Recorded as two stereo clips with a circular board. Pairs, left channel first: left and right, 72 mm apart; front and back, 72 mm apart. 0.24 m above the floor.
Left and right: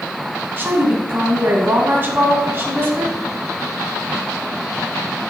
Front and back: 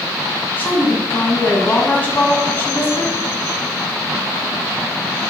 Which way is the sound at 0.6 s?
55° right.